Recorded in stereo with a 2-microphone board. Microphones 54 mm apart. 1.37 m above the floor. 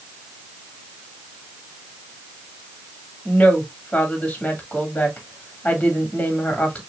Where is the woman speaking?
25° left (ahead or behind), 2.5 m.